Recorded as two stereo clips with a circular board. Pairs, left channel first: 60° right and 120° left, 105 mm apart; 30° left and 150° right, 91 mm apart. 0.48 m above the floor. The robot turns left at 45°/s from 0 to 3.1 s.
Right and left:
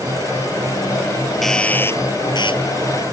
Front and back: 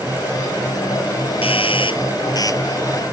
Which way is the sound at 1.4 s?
30° left.